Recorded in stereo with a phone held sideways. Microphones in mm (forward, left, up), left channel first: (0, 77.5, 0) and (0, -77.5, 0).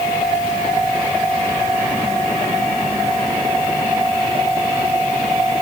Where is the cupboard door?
I don't hear a cupboard door.